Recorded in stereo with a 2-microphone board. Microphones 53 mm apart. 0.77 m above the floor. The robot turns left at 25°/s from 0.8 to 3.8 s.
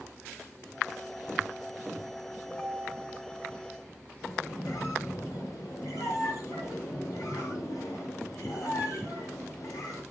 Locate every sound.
2.5 s a ringtone: 40° left (ahead or behind), 3.5 m; by 3.2 s 60° left (ahead or behind), 3.5 m
4.2 s a squeak: 80° left, 3.5 m